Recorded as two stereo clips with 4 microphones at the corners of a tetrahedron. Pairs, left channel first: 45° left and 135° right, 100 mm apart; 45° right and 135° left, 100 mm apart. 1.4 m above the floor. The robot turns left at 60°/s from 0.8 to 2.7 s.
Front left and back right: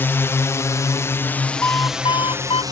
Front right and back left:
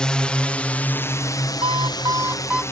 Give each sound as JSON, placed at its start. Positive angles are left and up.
{"t": 0.0, "sound": "a drone", "azimuth_deg": 25}
{"t": 1.6, "sound": "an alarm clock", "azimuth_deg": 115}